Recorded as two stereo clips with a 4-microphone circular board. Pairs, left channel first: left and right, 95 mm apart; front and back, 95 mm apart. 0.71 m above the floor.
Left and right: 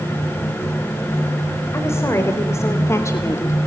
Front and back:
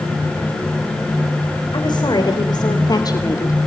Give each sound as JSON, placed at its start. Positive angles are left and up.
{"t": 1.7, "sound": "a woman speaking", "azimuth_deg": 30, "distance_m": 3.5}